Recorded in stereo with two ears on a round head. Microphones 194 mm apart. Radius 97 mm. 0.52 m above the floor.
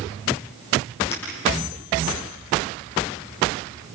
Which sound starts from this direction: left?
Breaking glass, at 1.1 s.